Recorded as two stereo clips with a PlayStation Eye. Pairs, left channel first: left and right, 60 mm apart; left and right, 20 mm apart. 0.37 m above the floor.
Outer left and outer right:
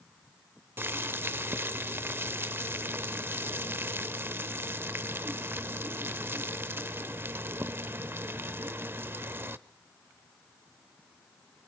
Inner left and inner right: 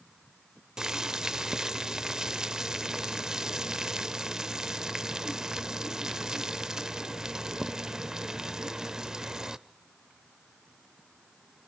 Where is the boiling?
35° right (ahead or behind), 0.8 m.